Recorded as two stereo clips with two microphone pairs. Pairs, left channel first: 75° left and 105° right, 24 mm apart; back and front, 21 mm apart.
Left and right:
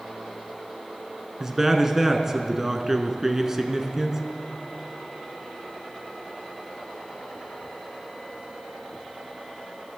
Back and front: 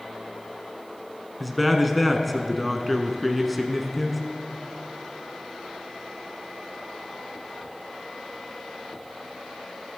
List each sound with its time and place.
1.4 s a man speaking: 95° right, 1.0 m